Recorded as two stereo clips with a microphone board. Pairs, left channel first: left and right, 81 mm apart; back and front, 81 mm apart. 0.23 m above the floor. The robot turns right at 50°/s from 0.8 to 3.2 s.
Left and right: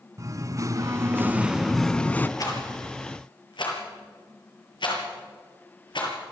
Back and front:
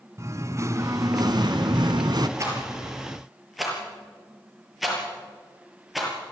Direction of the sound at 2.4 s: 50° left.